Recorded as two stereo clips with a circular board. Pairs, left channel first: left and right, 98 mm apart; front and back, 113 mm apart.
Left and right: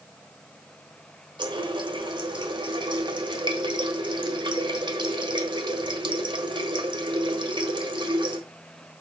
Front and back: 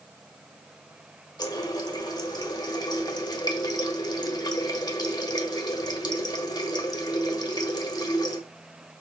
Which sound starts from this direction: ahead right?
A running tap, at 1.4 s.